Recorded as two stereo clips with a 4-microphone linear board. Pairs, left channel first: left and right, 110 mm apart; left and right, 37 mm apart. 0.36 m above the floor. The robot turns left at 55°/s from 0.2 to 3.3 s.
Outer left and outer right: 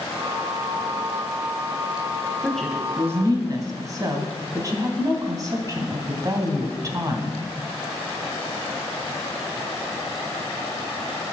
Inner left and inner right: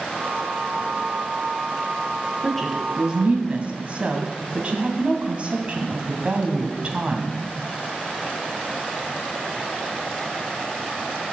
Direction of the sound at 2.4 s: 10° left (ahead or behind).